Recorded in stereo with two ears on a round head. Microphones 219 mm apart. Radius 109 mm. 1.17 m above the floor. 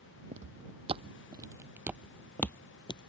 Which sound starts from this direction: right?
Footsteps, at 0.3 s.